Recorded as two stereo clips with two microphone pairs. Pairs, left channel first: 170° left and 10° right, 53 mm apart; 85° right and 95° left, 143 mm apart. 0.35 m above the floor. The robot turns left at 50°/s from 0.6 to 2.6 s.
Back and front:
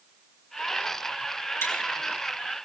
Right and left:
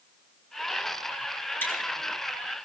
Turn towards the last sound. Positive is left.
turn(degrees=150)